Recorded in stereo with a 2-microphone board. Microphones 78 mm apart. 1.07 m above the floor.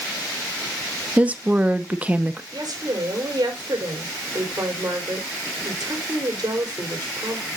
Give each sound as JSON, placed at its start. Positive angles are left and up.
{"t": 1.2, "sound": "a woman speaking", "side_deg": -15, "distance_m": 0.9}
{"t": 2.5, "sound": "a woman speaking", "side_deg": -55, "distance_m": 3.5}